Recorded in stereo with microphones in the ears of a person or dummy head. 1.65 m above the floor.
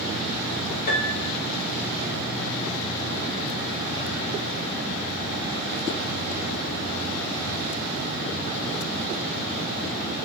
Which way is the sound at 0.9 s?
45° left (ahead or behind).